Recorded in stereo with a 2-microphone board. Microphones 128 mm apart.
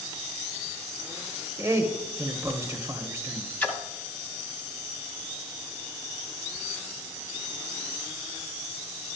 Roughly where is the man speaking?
Right.